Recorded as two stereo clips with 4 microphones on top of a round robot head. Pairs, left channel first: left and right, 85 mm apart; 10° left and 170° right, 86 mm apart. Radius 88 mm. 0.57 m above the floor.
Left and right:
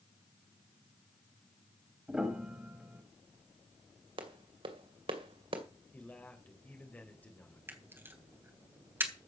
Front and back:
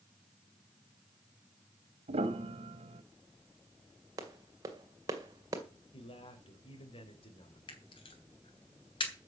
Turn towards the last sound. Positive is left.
turn(degrees=-25)